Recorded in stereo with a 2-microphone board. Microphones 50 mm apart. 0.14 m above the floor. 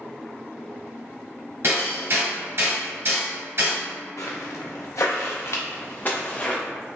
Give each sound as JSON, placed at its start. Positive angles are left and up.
{"t": 1.6, "sound": "hammering", "side_deg": -55, "distance_m": 1.7}
{"t": 4.2, "sound": "footsteps", "side_deg": 75, "distance_m": 1.2}